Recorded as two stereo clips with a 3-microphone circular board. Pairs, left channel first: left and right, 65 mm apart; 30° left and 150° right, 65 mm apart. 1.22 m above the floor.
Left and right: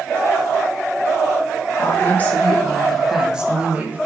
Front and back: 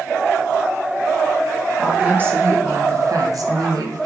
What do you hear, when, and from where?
1.8 s a woman speaking: 140° left, 1.6 m; by 4.1 s 150° right, 1.9 m